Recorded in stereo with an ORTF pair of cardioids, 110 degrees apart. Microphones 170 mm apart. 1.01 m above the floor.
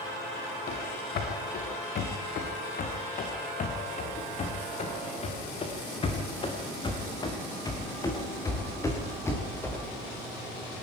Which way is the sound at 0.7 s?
65° left.